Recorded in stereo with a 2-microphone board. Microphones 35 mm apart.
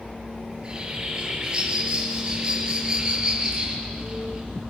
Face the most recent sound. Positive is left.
turn(degrees=-20)  # may be behind; listen again after turning